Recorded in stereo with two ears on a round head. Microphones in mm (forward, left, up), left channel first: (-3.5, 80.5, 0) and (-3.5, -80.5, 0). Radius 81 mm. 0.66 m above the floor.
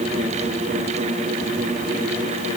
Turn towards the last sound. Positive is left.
No sound to turn to.